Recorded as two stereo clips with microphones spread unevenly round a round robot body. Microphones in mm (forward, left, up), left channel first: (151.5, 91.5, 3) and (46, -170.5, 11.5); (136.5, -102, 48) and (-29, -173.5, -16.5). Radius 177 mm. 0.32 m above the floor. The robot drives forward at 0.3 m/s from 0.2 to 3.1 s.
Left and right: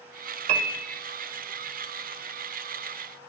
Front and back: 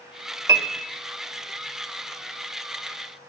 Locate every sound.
0.5 s a piano: 120° right, 0.8 m; by 0.8 s 125° right, 0.9 m